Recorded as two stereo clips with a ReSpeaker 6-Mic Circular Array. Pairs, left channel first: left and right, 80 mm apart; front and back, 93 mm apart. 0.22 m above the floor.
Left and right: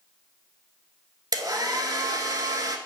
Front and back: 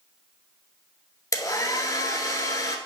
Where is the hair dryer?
50° right, 0.8 m.